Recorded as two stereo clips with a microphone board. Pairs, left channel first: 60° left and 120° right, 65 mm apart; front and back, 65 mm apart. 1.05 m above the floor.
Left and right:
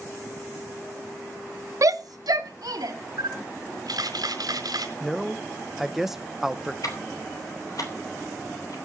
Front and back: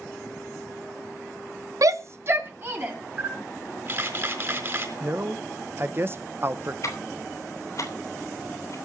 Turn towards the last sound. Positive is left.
turn(degrees=35)